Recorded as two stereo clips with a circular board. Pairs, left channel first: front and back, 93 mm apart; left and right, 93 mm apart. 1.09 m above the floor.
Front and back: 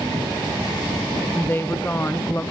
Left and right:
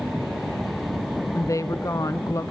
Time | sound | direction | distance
1.3 | a woman speaking | 55° left | 0.8 m